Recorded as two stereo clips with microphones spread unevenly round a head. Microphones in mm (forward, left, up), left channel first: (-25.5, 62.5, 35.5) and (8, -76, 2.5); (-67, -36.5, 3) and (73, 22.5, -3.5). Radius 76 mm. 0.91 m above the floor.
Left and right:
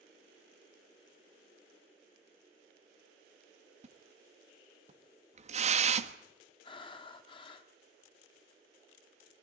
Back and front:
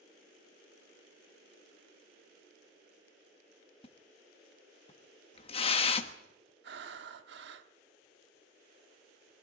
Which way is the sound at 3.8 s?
105° right.